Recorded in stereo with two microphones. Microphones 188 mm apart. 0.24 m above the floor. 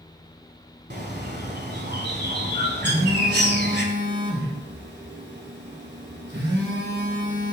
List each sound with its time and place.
0.9 s a bird: 55° right (ahead or behind), 1.2 m
2.8 s a phone buzzing: 60° right (ahead or behind), 2.5 m